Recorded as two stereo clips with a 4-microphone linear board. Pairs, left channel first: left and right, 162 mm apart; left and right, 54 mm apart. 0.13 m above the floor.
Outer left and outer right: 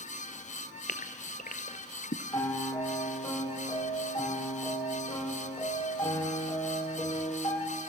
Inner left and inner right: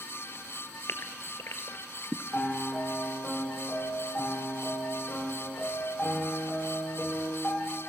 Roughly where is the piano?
Left.